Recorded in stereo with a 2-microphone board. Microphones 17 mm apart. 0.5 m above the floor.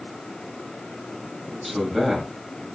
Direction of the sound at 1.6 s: 10° right (ahead or behind).